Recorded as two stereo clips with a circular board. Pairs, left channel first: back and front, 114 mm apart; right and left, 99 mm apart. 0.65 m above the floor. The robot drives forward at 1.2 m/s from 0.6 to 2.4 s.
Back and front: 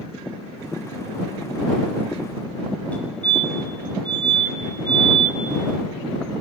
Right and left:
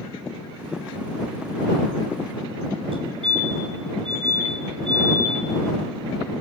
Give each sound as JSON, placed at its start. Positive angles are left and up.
{"t": 2.9, "sound": "a fire alarm", "azimuth_deg": 105, "distance_m": 5.5}